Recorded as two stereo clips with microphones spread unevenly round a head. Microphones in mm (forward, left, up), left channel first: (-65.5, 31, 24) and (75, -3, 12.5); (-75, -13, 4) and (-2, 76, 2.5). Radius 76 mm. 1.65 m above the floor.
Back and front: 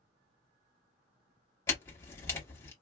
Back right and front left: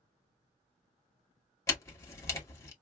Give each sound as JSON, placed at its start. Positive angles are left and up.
{"t": 1.7, "sound": "a camera shutter", "azimuth_deg": -150, "distance_m": 1.0}